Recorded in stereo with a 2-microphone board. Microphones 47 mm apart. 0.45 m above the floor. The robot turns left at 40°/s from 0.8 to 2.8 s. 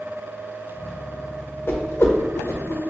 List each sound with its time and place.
1.7 s a whoosh: 50° left (ahead or behind), 0.6 m; by 2.8 s 60° left (ahead or behind), 0.6 m